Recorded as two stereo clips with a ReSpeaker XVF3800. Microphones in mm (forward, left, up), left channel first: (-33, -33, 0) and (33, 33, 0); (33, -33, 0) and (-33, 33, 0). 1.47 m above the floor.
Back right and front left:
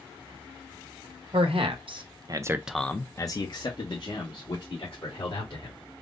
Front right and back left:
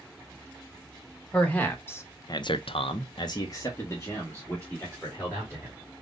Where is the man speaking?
30° left, 1.3 m; by 5.8 s 115° right, 3 m.